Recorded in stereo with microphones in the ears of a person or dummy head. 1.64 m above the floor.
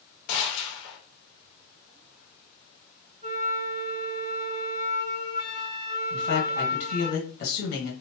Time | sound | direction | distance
0.3 | a gunshot | 75° left (ahead or behind) | 1.0 m
3.2 | a flute | 35° right (ahead or behind) | 1.1 m
6.1 | a man speaking | 60° left (ahead or behind) | 1.6 m